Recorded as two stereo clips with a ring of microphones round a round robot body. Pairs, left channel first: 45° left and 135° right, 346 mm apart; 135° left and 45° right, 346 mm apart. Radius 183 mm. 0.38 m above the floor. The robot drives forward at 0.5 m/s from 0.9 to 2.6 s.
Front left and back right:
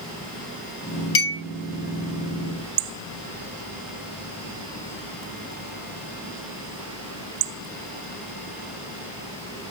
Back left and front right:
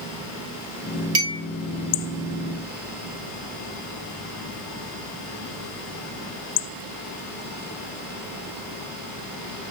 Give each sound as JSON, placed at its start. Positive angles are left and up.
{"t": 1.1, "sound": "a clink", "azimuth_deg": 0, "distance_m": 1.2}